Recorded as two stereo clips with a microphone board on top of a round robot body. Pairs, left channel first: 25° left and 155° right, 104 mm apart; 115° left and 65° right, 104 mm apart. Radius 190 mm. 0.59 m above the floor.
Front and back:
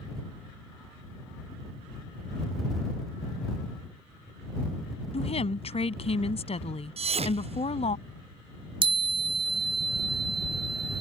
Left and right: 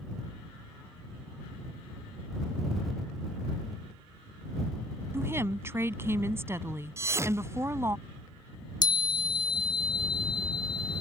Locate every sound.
5.1 s a woman speaking: straight ahead
7.0 s a thud: 135° right
8.8 s a chime: 160° left